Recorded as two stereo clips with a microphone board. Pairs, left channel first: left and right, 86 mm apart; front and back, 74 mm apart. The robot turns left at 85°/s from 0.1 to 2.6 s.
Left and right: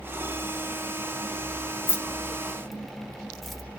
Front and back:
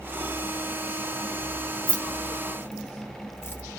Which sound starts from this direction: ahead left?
Keys jangling, at 1.9 s.